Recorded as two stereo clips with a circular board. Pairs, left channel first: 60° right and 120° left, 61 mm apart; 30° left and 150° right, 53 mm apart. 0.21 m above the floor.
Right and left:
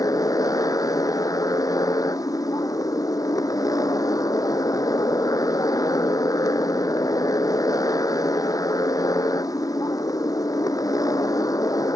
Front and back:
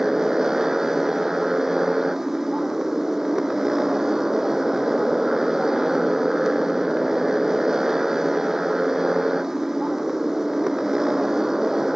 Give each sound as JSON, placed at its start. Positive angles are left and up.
{"t": 0.0, "sound": "a motorcycle", "azimuth_deg": -70}